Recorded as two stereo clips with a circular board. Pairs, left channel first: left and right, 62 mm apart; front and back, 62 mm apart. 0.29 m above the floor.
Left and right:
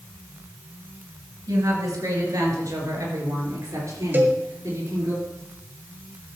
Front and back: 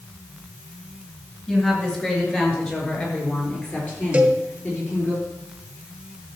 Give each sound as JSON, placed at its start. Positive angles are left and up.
{"t": 1.5, "sound": "a woman speaking", "azimuth_deg": -75, "distance_m": 4.0}
{"t": 4.1, "sound": "a cowbell", "azimuth_deg": -120, "distance_m": 1.5}